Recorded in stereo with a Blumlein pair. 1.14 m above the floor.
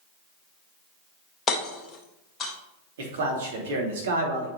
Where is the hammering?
20° left, 1.1 m.